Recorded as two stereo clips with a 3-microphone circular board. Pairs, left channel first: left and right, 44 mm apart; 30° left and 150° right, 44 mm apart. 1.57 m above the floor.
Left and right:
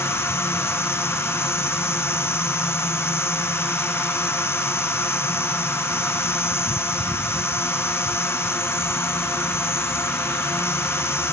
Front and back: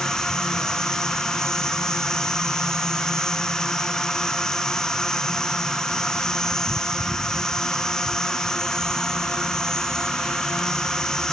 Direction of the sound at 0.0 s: 105° left.